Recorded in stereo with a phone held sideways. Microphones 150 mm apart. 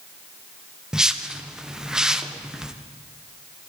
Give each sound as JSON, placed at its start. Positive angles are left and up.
{"t": 0.9, "sound": "a whoosh", "side_deg": -5, "distance_m": 0.6}